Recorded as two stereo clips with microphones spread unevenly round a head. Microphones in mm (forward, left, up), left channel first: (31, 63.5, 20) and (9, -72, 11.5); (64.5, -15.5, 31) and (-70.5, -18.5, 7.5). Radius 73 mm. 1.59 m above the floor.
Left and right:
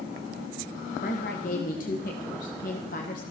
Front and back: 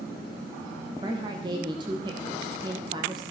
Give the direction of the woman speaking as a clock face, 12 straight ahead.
8 o'clock.